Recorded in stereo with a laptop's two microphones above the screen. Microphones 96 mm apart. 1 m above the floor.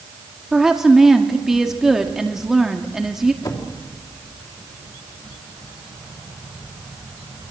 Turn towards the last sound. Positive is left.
turn(degrees=50)  # may be behind; listen again after turning